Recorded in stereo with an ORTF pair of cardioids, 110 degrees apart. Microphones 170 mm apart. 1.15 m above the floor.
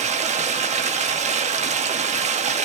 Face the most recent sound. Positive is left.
turn(degrees=-45)